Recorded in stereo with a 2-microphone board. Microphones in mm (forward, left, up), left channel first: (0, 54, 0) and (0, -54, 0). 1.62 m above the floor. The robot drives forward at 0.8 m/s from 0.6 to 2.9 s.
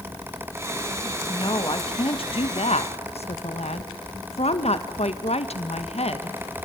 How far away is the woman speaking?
About 2.5 m.